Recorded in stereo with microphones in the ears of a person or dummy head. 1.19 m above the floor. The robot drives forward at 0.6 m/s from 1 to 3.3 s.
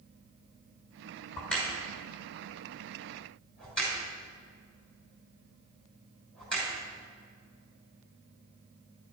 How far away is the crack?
About 5.5 m.